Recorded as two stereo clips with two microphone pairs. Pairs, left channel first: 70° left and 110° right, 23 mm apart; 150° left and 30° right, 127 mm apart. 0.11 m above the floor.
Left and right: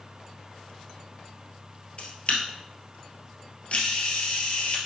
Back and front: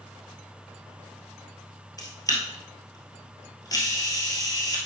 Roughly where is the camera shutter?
Left.